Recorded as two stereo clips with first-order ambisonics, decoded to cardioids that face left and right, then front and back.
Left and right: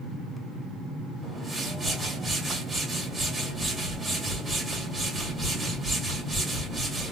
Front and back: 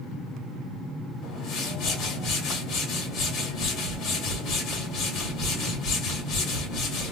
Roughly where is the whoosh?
Ahead.